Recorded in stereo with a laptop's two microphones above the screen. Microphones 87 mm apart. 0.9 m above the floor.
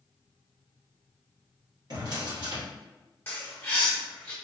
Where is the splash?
I don't hear a splash.